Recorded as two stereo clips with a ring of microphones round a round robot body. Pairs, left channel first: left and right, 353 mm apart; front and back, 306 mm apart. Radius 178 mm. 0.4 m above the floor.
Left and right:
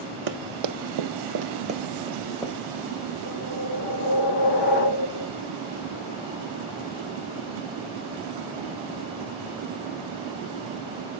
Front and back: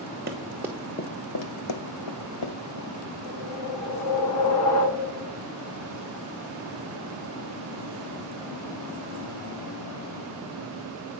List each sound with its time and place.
0.3 s running footsteps: 115° right, 1.1 m; by 3.1 s 10° left, 2.5 m
3.2 s a whoosh: 25° left, 1.6 m